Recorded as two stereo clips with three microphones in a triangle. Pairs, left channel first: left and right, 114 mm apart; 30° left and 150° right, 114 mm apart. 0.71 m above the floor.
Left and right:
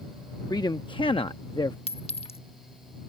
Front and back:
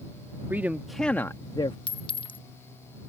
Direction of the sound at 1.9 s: 70° left.